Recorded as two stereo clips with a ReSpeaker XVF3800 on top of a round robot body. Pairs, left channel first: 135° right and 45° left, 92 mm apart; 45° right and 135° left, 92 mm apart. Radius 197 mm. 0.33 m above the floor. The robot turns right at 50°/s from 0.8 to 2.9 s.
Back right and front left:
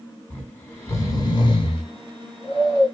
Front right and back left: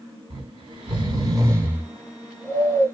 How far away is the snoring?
About 1.1 m.